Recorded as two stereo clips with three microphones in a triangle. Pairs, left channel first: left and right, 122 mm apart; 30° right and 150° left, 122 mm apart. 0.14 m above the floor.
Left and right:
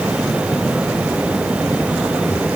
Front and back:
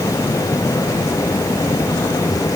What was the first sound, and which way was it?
Only background noise.